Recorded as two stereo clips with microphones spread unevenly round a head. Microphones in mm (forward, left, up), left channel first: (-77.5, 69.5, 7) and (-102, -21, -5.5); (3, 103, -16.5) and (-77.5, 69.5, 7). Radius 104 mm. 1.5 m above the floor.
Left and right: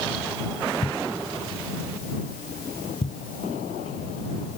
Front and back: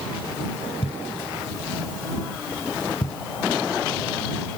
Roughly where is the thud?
Ahead left.